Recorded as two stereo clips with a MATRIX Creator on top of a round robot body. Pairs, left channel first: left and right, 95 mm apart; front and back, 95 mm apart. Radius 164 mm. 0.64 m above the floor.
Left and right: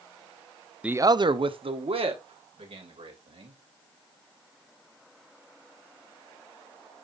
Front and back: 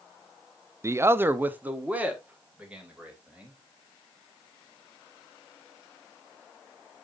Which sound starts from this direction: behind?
A man speaking, at 0.8 s.